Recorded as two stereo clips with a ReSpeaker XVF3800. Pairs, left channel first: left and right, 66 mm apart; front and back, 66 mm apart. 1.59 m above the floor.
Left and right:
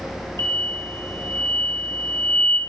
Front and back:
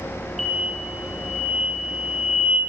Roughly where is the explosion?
Right.